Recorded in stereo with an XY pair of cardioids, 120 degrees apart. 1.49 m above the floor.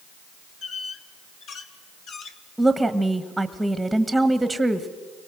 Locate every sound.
0.6 s a squeak: 60° left, 1.9 m
2.6 s a woman speaking: 5° right, 1.4 m